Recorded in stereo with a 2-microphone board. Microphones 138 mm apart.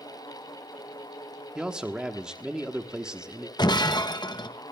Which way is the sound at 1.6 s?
5° right (ahead or behind).